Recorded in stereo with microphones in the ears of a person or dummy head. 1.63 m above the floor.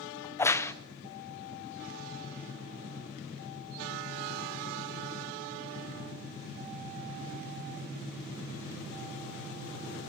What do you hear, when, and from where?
0.2 s a crack: 15° left (ahead or behind), 1.0 m